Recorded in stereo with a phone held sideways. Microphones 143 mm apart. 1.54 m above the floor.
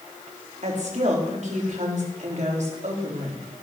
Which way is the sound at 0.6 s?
55° right (ahead or behind).